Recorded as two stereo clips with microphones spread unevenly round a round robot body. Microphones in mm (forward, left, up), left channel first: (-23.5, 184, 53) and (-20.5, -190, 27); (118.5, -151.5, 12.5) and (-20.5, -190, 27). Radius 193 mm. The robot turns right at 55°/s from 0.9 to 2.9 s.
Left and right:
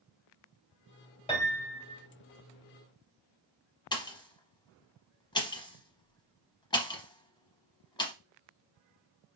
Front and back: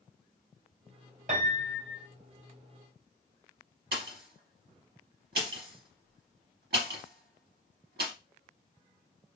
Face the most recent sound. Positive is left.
turn(degrees=170)